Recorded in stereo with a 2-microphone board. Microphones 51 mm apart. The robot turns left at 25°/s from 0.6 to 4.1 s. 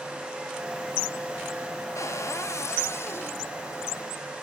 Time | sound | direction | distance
1.9 | a cupboard door | 90° left | 0.9 m